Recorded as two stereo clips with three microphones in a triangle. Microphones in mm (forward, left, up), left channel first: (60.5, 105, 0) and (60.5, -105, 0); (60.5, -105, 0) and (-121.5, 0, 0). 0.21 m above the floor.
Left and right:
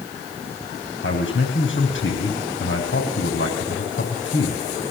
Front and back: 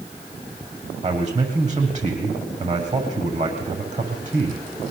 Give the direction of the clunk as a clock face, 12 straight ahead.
No clunk in this recording.